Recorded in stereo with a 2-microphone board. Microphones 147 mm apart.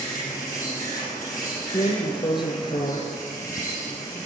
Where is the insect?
70° left (ahead or behind), 6.5 m.